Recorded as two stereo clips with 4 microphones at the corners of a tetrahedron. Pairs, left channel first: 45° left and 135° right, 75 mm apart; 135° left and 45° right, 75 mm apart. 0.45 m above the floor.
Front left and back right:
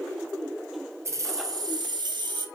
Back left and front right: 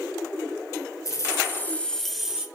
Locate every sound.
1.1 s keys jangling: 175° left, 1.6 m; by 2.5 s 125° right, 1.7 m